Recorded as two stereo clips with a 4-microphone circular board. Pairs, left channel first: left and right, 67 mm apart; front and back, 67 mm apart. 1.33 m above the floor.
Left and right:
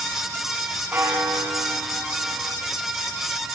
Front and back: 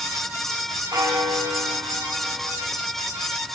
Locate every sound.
0.9 s a bell: 150° right, 8 m